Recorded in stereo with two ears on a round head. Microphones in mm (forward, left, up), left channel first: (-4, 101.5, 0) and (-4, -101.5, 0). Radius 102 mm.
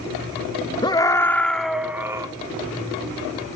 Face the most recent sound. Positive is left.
turn(degrees=-15)  # may be behind; listen again after turning